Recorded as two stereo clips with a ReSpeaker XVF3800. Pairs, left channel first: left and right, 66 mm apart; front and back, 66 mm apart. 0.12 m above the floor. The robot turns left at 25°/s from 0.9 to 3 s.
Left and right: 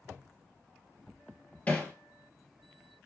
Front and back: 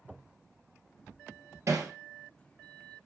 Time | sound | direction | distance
1.7 | hammering | 155° left | 1.7 m